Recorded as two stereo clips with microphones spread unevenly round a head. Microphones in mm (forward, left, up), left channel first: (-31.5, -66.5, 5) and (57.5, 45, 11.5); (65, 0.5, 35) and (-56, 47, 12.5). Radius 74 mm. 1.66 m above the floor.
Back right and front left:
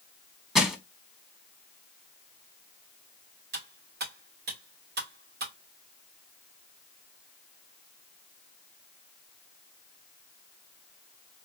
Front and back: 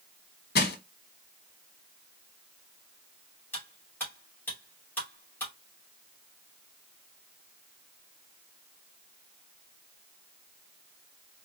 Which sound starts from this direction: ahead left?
Cutlery clinking, at 3.5 s.